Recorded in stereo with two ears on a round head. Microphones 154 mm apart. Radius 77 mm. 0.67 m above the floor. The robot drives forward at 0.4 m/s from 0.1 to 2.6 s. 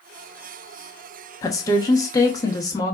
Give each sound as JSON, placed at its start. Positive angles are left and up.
{"t": 1.4, "sound": "a woman speaking", "side_deg": 20, "distance_m": 0.9}